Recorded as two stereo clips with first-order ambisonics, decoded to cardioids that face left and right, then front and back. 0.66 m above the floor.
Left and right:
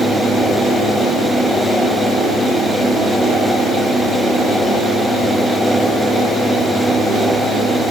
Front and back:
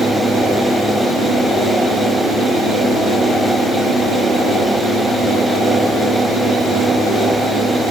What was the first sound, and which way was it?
Only background noise.